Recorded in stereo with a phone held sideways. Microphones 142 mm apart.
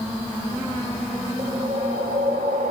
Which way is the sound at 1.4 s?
75° right (ahead or behind).